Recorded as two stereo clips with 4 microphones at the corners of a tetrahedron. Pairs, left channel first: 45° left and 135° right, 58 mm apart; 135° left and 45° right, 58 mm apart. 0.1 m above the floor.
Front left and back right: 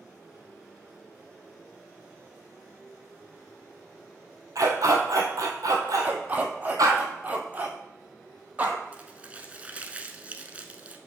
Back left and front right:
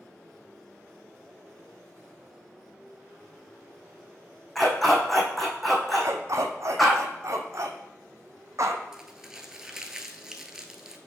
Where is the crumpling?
110° right, 0.7 m.